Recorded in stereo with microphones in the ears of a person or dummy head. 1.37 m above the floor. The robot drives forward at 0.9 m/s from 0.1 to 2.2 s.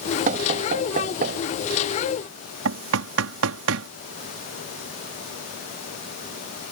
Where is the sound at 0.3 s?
40° right (ahead or behind); by 1.4 s 50° right (ahead or behind).